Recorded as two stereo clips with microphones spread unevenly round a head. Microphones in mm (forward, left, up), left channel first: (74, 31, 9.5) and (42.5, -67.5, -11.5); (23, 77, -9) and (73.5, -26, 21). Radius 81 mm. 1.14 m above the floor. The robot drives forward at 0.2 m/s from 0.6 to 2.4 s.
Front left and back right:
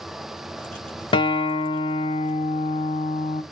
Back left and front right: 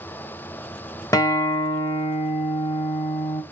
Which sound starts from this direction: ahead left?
A guitar, at 1.1 s.